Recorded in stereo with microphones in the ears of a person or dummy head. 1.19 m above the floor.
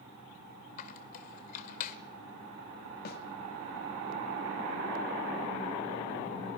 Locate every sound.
0.8 s a squeak: 50° left (ahead or behind), 1.4 m
3.0 s a snare drum: 45° left (ahead or behind), 1.7 m